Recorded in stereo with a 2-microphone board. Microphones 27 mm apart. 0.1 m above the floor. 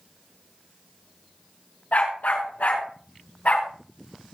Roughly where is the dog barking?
Left.